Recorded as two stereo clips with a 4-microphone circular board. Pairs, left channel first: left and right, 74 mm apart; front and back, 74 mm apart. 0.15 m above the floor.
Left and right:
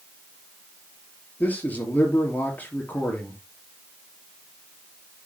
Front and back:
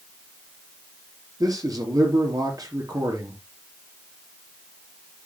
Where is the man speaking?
155° left, 3.5 m.